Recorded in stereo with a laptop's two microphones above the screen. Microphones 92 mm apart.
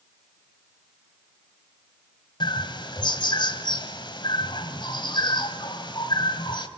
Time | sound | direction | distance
2.4 | a bird | 55° left (ahead or behind) | 1.2 m